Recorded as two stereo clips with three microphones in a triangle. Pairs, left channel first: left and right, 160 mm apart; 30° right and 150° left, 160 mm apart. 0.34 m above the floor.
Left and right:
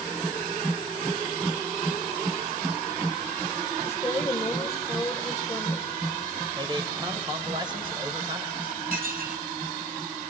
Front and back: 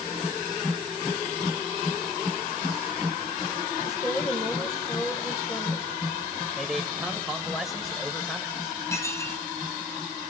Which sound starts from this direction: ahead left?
A woman speaking, at 3.8 s.